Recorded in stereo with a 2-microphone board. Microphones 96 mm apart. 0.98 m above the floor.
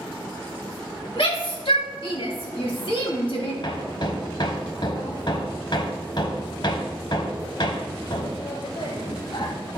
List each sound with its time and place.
1.2 s a shout: 70° left (ahead or behind), 2.5 m
3.6 s hammering: 55° left (ahead or behind), 1.2 m